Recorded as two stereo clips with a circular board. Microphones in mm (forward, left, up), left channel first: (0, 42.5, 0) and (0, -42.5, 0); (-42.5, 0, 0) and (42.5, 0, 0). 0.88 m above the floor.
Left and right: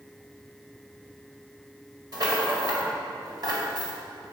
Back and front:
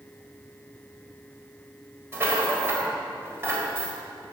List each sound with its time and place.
2.1 s a rattle: 60° right, 2 m